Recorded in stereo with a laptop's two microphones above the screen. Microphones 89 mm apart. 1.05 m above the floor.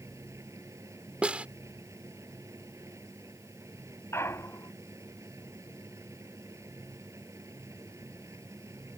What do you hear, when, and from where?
0.0 s a machine running: 35° right (ahead or behind)
1.2 s a snare drum: 15° right (ahead or behind)
4.1 s a clunk: 30° left (ahead or behind)